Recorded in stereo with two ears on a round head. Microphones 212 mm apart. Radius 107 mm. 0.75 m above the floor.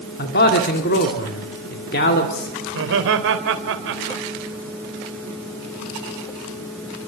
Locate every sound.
0.2 s a man speaking: 45° left (ahead or behind), 2 m
2.7 s laughter: 55° right (ahead or behind), 3.5 m